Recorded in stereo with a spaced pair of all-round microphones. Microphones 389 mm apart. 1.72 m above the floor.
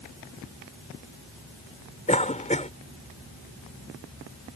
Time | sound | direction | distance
2.1 | a cough | 20° left (ahead or behind) | ?